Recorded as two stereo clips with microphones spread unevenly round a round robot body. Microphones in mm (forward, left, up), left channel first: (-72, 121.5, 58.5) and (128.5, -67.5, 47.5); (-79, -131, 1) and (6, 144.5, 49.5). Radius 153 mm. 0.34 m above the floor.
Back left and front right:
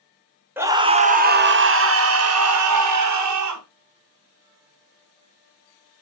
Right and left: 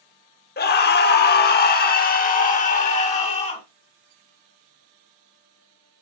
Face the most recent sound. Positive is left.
turn(degrees=-40)